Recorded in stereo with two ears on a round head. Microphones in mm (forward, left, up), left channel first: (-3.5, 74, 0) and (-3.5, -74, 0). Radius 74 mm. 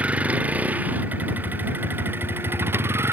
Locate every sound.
0.0 s a vehicle: 10° right (ahead or behind); by 3.1 s 15° right (ahead or behind)